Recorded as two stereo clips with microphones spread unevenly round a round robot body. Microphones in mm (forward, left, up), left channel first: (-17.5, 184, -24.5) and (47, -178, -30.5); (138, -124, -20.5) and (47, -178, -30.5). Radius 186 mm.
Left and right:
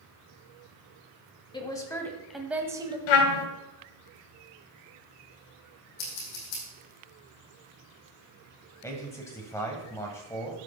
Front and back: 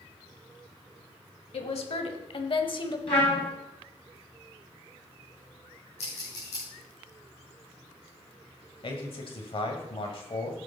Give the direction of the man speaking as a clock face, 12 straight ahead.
11 o'clock.